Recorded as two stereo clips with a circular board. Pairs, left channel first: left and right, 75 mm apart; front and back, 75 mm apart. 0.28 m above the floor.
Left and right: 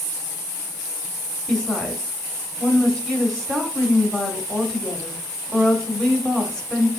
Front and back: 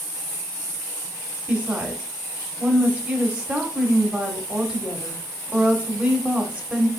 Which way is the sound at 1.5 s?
150° left.